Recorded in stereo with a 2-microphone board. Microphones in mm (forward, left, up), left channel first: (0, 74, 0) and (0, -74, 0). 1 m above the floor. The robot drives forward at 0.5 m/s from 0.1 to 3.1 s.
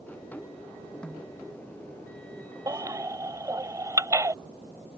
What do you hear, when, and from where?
1.0 s a snare drum: 5° left (ahead or behind)
2.7 s a baby crying: 25° right (ahead or behind); by 4.3 s 20° right (ahead or behind)